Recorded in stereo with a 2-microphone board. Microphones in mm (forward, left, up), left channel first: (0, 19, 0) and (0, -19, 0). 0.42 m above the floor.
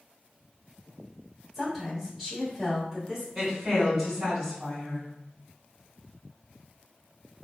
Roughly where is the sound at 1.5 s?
Centre.